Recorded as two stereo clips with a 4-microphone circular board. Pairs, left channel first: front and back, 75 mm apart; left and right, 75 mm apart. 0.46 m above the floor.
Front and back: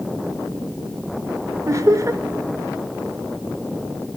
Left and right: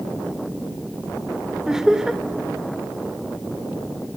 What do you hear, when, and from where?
1.7 s laughter: 170° right, 1.1 m